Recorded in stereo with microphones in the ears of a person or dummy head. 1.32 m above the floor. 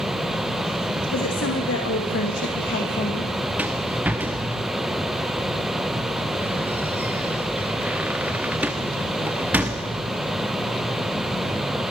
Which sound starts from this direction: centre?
A rattle, at 3.6 s.